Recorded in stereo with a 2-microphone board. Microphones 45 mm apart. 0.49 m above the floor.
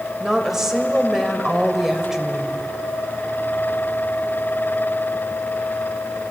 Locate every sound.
0.2 s a woman speaking: 10° right (ahead or behind), 2.5 m